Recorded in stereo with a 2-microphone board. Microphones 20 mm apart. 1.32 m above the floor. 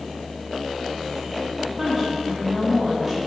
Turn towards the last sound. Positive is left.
turn(degrees=-20)  # may be behind; listen again after turning